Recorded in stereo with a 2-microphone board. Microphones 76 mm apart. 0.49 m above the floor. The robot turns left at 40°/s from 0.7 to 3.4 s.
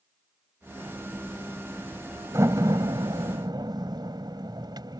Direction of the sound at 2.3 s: 45° right (ahead or behind).